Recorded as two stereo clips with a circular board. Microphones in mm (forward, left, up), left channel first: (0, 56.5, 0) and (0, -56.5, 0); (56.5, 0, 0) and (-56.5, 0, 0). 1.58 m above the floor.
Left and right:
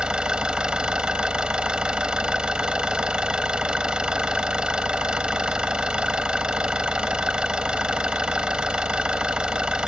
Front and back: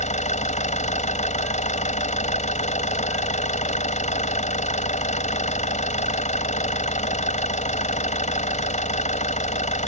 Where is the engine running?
5° right.